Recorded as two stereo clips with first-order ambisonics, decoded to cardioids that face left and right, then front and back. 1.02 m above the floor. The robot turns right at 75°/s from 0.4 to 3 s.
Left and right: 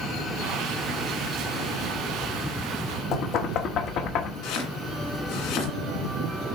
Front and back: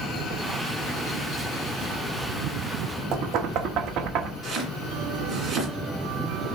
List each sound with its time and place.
3.1 s knocking: 135° left, 1.2 m
4.4 s chopping: 110° left, 2 m